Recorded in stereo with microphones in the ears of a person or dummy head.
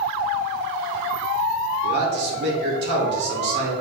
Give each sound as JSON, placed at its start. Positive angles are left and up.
{"t": 1.8, "sound": "a man speaking", "side_deg": -60, "distance_m": 3.5}